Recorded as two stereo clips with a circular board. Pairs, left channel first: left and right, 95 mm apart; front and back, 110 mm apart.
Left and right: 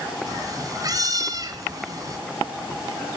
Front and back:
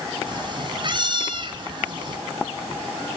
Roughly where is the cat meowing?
Behind right.